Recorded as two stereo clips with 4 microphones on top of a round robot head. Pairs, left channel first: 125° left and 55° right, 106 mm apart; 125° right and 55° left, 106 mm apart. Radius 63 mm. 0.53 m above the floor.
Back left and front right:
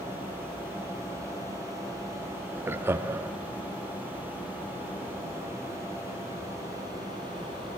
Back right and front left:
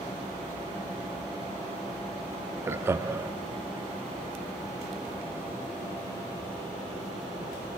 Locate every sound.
2.7 s laughter: straight ahead, 0.8 m